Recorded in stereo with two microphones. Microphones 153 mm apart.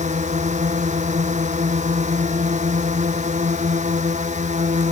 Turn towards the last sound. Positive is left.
turn(degrees=-50)  # may be behind; listen again after turning